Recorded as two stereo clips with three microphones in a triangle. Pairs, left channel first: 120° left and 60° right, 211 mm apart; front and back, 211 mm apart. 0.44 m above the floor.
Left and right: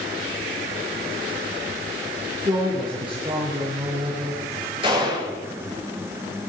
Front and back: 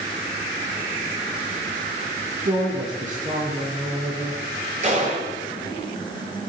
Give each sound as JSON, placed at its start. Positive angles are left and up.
{"t": 2.5, "sound": "a woman speaking", "azimuth_deg": -125, "distance_m": 6.0}
{"t": 4.8, "sound": "a gunshot", "azimuth_deg": -125, "distance_m": 9.0}